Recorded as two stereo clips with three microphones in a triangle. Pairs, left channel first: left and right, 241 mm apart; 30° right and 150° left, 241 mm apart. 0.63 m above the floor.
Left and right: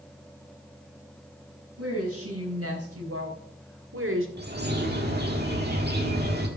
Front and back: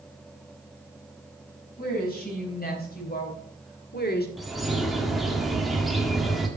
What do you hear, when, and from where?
1.8 s a woman speaking: 80° right, 4.5 m; by 4.3 s 70° right, 1.6 m
4.4 s a bird: 120° right, 1.6 m